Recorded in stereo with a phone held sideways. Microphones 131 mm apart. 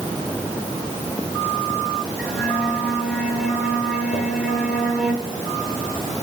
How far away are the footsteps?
About 3.5 m.